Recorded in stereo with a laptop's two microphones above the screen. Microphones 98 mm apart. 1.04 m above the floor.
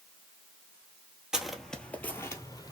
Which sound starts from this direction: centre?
Footsteps, at 1.3 s.